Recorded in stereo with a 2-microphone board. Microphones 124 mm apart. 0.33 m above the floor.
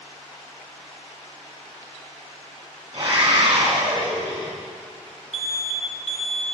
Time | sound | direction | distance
2.9 | a scream | 50° right (ahead or behind) | 2.5 m
5.3 | an alarm | 55° left (ahead or behind) | 1.1 m